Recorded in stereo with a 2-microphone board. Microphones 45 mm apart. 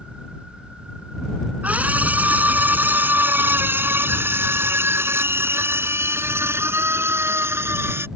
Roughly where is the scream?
Right.